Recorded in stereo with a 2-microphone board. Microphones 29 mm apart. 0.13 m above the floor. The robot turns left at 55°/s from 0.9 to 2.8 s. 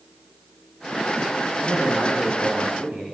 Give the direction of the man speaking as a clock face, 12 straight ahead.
1 o'clock.